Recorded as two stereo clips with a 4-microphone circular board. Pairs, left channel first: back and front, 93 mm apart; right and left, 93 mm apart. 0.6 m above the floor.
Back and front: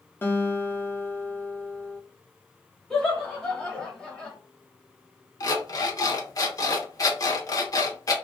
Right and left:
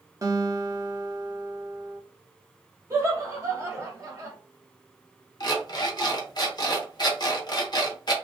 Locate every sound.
0.2 s a guitar: 125° left, 0.6 m
2.9 s laughter: 105° left, 1.2 m
5.4 s an alarm clock: 130° right, 0.7 m